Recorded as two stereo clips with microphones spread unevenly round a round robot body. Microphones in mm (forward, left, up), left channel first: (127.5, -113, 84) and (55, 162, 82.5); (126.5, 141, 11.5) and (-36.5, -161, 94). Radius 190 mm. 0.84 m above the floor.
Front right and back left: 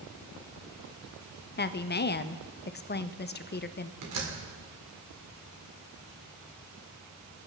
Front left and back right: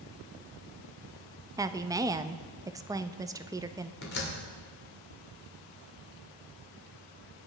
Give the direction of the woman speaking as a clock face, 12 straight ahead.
1 o'clock.